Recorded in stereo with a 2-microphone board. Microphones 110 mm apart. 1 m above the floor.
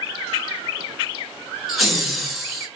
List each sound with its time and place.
1.7 s laughter: centre (ahead or behind), 1.2 m